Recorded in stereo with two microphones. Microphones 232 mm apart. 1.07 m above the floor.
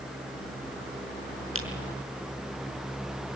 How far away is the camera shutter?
About 5.5 m.